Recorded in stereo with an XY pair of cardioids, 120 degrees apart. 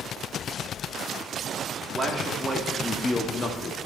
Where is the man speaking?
40° right, 2.5 m; by 3.8 s 45° left, 2 m.